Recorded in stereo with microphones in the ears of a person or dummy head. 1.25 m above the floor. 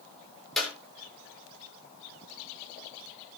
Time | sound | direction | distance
0.6 | a clap | 10° left (ahead or behind) | 3.5 m